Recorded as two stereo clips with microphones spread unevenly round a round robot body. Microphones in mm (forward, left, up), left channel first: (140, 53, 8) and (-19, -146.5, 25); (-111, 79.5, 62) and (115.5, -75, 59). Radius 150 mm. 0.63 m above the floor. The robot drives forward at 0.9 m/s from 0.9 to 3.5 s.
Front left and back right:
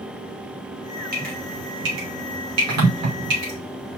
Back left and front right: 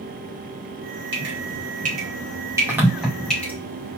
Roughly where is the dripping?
Right.